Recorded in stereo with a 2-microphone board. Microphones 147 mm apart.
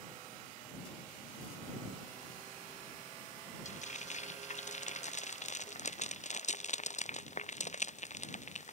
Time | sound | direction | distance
3.6 | frying | 55° left (ahead or behind) | ?